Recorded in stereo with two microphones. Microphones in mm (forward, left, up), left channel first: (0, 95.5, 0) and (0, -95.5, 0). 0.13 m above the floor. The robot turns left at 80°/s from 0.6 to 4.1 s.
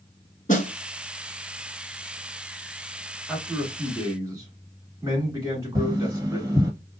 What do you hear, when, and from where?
0.5 s a snare drum: 40° left (ahead or behind), 1.1 m
3.3 s a man speaking: centre (ahead or behind), 1.7 m; by 6.5 s 20° right (ahead or behind), 1.7 m
5.8 s tapping: 15° right (ahead or behind), 1.6 m